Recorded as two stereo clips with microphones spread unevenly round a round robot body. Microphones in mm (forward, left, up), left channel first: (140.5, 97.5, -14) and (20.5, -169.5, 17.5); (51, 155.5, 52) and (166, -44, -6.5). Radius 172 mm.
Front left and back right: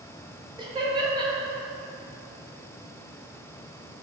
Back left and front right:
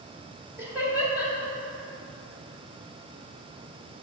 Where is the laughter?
45° right, 0.8 m.